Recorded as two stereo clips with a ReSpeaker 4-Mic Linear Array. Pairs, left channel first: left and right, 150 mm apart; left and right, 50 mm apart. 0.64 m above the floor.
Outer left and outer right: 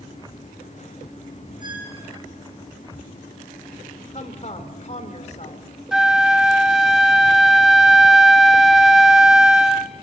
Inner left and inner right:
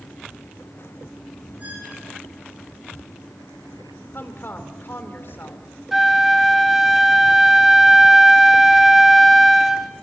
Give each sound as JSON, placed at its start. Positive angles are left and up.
{"t": 1.6, "sound": "a squeak", "side_deg": -30, "distance_m": 7.5}
{"t": 4.1, "sound": "a woman speaking", "side_deg": 50, "distance_m": 2.5}
{"t": 5.9, "sound": "a flute", "side_deg": -5, "distance_m": 0.8}